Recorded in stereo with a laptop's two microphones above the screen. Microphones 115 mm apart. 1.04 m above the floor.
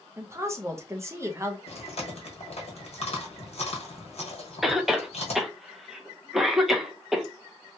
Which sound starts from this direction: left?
Chewing, at 1.7 s.